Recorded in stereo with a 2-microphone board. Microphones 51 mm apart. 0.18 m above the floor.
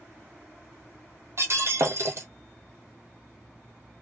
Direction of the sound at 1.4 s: 60° right (ahead or behind).